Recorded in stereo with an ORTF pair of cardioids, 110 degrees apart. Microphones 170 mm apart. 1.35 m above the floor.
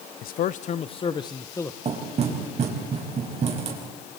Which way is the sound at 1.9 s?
40° right.